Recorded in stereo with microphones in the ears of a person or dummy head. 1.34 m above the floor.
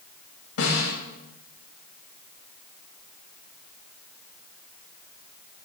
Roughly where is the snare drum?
Left.